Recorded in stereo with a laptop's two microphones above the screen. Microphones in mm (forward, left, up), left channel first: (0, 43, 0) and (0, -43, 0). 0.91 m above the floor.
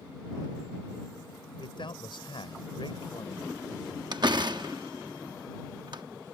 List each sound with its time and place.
1.6 s a man speaking: 75° left (ahead or behind)
4.1 s a door slam: 60° right (ahead or behind)